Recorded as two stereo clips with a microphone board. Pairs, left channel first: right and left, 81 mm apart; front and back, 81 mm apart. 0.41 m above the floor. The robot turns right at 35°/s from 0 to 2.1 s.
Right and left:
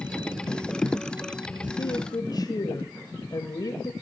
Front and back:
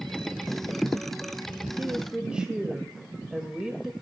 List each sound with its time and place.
1.8 s a woman speaking: 115° right, 1.7 m; by 3.9 s 100° right, 1.7 m